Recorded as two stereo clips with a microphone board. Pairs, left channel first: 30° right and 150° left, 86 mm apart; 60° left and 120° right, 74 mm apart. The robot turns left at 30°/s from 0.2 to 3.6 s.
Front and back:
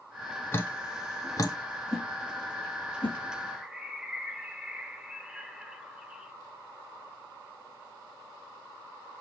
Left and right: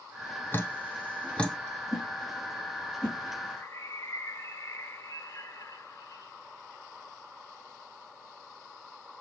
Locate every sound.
0.5 s dripping: 20° left, 0.8 m; by 1.6 s 10° right, 0.8 m
1.9 s a whoosh: 25° left, 3.5 m; by 3.2 s 15° right, 3.5 m
3.5 s a bird: 75° left, 0.7 m; by 6.3 s 70° left, 0.7 m